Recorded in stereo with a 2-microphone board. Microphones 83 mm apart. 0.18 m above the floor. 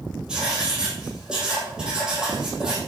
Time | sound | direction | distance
0.3 | writing | 10° right (ahead or behind) | 4 m